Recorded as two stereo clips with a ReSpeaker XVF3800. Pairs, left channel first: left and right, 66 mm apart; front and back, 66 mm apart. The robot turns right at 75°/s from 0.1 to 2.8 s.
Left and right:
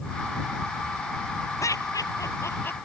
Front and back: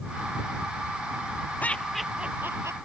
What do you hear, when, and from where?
1.6 s laughter: 60° left; by 2.8 s 145° left